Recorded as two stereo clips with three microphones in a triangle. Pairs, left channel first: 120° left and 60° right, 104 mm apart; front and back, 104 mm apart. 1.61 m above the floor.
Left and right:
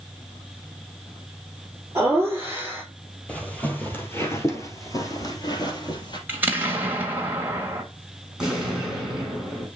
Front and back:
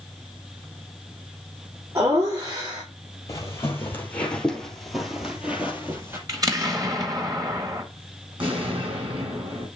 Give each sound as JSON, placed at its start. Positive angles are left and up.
{"t": 1.9, "sound": "laughter", "azimuth_deg": -125, "distance_m": 4.0}
{"t": 3.3, "sound": "footsteps", "azimuth_deg": 45, "distance_m": 2.0}
{"t": 6.3, "sound": "an explosion", "azimuth_deg": -130, "distance_m": 1.6}
{"t": 8.4, "sound": "an explosion", "azimuth_deg": -145, "distance_m": 4.5}